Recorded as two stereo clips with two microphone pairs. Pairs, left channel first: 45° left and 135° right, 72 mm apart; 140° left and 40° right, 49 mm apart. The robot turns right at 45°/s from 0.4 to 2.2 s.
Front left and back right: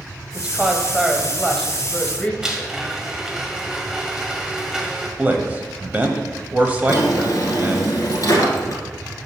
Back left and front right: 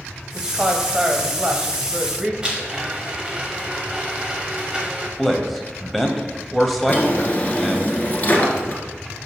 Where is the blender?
70° right, 1.3 m.